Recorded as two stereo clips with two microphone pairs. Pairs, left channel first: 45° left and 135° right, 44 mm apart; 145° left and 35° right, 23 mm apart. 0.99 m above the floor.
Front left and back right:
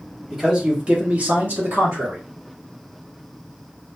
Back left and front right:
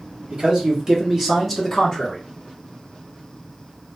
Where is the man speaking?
60° right, 1.2 m; by 2.2 s 150° right, 1.1 m.